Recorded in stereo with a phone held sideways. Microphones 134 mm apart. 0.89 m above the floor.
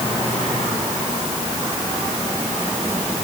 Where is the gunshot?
I don't hear a gunshot.